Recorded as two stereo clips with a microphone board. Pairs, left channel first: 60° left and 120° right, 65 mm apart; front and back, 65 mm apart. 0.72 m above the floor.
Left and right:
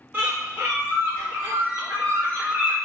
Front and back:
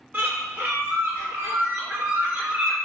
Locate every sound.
0.1 s a bird: 145° right, 1.1 m